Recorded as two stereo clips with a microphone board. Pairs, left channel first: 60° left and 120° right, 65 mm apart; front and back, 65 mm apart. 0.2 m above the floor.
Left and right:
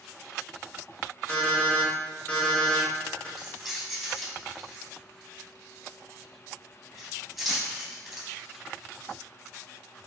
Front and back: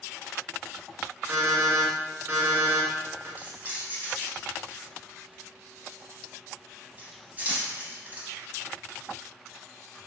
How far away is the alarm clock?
About 1.2 m.